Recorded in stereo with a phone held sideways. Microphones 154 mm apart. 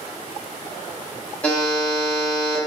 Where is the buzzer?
10° left (ahead or behind), 1.0 m.